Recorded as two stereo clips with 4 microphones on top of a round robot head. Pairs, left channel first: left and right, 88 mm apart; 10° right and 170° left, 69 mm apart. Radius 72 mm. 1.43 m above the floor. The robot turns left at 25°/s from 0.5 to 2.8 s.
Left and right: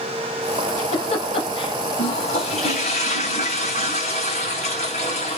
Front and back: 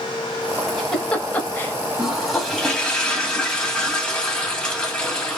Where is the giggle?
80° left, 2 m; by 1.7 s 50° left, 2 m.